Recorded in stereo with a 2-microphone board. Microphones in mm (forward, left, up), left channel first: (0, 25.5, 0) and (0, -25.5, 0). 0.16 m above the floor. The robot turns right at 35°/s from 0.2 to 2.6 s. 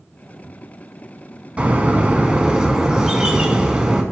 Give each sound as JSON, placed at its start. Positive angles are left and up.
{"t": 1.6, "sound": "a bird", "side_deg": -25, "distance_m": 1.1}